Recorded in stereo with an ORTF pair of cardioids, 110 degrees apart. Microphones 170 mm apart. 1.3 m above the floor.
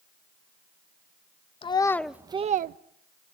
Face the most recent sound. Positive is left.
turn(degrees=-60)